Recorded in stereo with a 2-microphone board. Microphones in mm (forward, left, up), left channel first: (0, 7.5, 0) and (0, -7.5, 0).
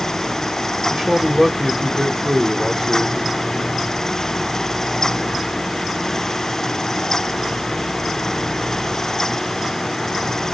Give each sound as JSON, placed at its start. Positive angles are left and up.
{"t": 0.9, "sound": "a man speaking", "side_deg": -25, "distance_m": 1.7}